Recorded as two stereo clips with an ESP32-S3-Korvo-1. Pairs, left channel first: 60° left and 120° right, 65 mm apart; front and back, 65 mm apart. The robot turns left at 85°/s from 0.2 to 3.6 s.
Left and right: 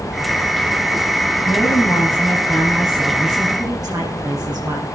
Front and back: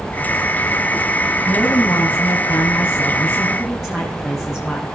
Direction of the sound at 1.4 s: 85° left.